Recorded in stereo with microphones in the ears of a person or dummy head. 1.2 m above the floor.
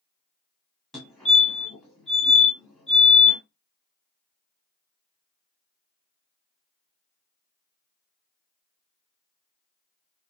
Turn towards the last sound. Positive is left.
turn(degrees=5)  # may be behind; listen again after turning